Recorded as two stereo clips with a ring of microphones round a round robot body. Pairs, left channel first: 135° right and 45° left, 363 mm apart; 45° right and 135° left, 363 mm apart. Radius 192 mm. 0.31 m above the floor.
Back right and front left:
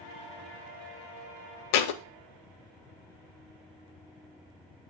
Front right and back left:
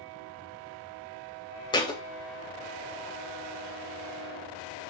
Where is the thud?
120° right, 0.7 m.